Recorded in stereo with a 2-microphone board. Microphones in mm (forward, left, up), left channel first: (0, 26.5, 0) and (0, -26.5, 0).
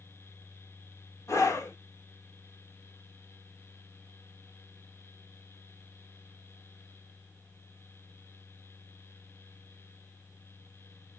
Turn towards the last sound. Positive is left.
turn(degrees=75)  # may be behind; listen again after turning